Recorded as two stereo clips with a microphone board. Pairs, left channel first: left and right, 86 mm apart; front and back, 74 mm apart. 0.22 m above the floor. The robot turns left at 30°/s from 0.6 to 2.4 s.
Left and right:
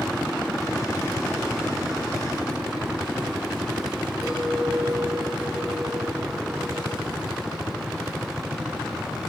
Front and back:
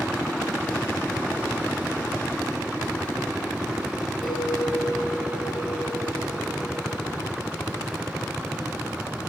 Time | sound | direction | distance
4.2 | a clink | 5° right | 7 m